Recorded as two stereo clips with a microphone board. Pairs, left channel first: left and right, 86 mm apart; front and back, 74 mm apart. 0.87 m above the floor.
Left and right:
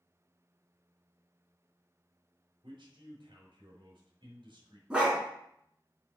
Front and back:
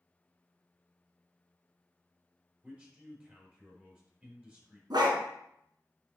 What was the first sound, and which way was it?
A man speaking, 110° right.